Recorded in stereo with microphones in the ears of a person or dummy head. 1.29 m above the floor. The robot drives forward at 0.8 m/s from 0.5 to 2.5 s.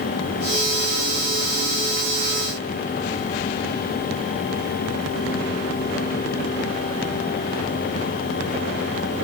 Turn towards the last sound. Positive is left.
No sound to turn to.